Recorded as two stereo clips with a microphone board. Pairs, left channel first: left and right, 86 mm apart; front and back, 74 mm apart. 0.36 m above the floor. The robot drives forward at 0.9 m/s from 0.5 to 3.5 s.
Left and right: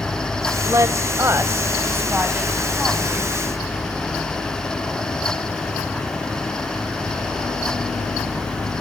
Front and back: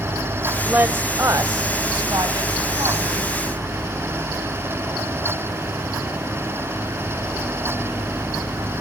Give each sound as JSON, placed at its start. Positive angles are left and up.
{"t": 0.7, "sound": "a woman speaking", "azimuth_deg": -120, "distance_m": 1.1}